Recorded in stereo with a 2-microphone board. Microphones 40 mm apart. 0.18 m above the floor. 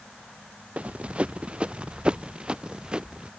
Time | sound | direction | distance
0.8 | running footsteps | 35° right (ahead or behind) | ?